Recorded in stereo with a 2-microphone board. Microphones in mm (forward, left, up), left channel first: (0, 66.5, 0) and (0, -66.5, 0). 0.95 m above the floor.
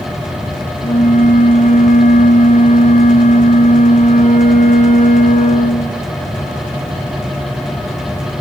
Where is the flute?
65° left (ahead or behind), 2 m.